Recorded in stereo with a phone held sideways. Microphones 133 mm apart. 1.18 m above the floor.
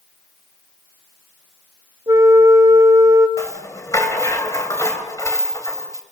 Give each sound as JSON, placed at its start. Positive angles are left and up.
{"t": 2.1, "sound": "a flute", "side_deg": -25, "distance_m": 1.7}
{"t": 3.4, "sound": "a rattle", "side_deg": 25, "distance_m": 3.0}